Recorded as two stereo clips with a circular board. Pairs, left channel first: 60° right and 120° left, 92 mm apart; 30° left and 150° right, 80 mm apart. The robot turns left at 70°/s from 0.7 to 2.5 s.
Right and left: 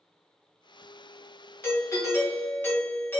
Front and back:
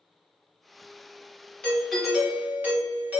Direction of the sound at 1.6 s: 35° right.